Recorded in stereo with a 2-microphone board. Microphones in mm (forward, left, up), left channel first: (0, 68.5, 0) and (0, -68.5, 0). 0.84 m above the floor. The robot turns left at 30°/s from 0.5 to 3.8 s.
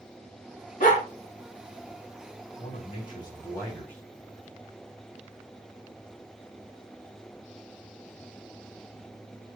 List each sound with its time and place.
0.8 s a dog barking: 80° left, 6 m; by 1.0 s 85° left, 6 m
2.6 s a man speaking: 50° left, 5 m; by 4.0 s 10° left, 5 m